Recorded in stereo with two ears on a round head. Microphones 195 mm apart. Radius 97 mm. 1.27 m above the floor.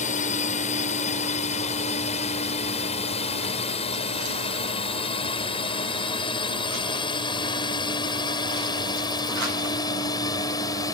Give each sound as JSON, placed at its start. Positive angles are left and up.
{"t": 0.0, "sound": "a drone", "side_deg": 35}